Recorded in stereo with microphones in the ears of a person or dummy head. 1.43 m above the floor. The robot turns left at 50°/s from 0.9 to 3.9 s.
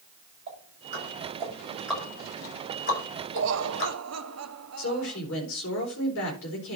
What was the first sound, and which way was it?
Ticking, 50° right (ahead or behind).